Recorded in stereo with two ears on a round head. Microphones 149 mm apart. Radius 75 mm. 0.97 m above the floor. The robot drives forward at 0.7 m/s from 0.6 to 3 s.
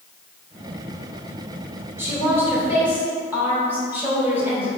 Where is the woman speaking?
15° right (ahead or behind), 3 m.